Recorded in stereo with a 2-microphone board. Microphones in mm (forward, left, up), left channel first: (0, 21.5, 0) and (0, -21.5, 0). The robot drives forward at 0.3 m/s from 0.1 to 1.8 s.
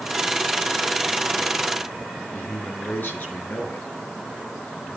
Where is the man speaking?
50° left (ahead or behind), 5.5 m.